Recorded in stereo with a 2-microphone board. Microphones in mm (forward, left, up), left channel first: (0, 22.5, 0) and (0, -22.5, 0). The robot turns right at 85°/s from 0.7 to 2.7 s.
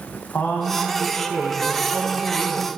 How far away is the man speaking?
About 2 m.